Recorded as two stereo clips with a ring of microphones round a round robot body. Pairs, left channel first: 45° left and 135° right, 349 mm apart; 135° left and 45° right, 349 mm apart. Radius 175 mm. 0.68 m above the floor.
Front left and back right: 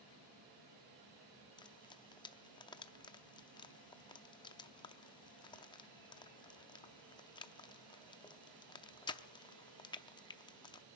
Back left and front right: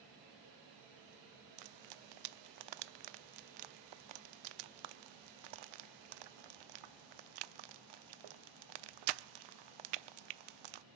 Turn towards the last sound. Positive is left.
turn(degrees=-35)